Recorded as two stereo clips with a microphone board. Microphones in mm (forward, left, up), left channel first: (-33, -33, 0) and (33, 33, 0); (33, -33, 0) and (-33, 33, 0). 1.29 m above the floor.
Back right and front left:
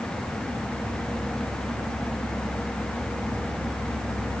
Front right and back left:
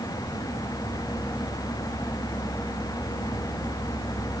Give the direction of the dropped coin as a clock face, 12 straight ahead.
I don't hear a dropped coin.